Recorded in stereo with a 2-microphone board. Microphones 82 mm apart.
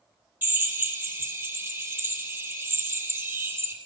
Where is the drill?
25° right (ahead or behind), 7 m.